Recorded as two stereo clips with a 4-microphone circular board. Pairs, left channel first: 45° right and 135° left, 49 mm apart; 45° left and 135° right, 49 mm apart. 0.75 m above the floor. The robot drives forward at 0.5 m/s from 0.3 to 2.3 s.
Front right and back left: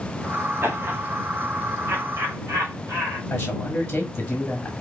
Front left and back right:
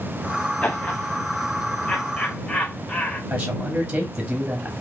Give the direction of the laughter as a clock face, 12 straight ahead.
9 o'clock.